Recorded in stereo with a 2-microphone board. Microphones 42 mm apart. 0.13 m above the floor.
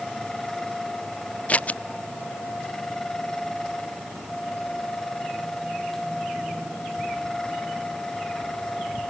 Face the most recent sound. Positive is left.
turn(degrees=35)  # may be behind; listen again after turning